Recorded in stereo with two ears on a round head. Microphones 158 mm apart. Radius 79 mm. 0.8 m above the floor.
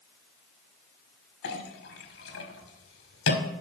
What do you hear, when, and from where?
1.4 s a clink: 65° left (ahead or behind), 1.6 m